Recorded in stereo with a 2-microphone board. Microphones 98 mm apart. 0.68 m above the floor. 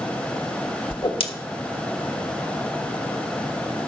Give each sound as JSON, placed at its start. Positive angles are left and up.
{"t": 0.9, "sound": "a whoosh", "side_deg": 65, "distance_m": 1.3}